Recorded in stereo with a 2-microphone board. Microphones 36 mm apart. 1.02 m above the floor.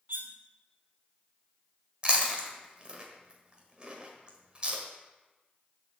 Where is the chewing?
30° right (ahead or behind), 1.3 m.